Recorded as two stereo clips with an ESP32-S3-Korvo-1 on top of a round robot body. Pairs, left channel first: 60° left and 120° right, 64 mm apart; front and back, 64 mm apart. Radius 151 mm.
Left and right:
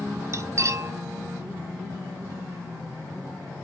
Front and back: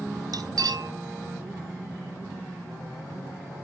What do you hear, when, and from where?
0.3 s cutlery clinking: 165° right, 1.2 m